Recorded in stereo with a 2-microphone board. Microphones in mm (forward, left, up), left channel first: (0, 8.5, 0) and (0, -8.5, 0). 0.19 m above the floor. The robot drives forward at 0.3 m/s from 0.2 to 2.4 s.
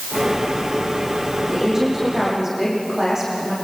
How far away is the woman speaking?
About 9 m.